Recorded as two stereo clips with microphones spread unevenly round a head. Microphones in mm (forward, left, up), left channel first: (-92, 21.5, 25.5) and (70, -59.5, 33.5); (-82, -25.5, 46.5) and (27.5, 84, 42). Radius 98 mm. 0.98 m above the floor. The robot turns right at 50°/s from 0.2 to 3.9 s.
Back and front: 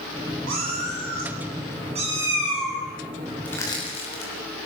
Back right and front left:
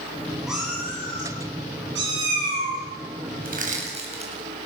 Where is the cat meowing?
40° right, 8 m; by 2.8 s 75° left, 8 m.